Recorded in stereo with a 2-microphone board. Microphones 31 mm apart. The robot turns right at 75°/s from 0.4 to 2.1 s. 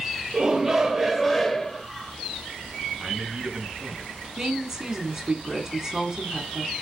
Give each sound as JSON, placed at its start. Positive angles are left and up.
{"t": 0.3, "sound": "a shout", "side_deg": -20, "distance_m": 1.1}
{"t": 3.0, "sound": "a man speaking", "side_deg": -30, "distance_m": 4.5}
{"t": 4.4, "sound": "a woman speaking", "side_deg": -15, "distance_m": 3.0}